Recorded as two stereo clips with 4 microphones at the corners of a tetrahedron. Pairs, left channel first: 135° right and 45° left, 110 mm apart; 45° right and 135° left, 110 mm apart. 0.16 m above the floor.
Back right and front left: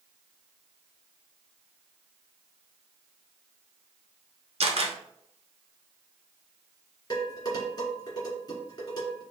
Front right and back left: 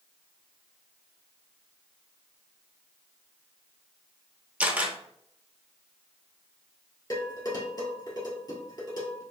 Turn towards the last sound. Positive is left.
turn(degrees=-90)